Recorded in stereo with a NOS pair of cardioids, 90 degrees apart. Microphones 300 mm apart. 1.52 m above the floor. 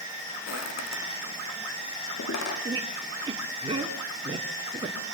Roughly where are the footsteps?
Ahead left.